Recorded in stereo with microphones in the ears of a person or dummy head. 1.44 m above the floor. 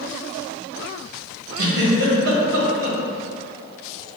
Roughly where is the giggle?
Right.